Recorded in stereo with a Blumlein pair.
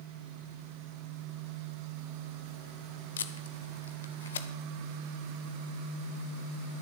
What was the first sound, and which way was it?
Tape being pulled, 65° left.